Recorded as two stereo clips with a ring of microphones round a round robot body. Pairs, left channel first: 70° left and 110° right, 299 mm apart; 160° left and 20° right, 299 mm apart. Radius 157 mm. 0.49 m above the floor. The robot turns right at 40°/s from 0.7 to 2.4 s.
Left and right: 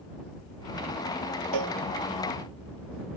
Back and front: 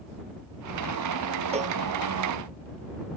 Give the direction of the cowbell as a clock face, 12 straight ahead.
3 o'clock.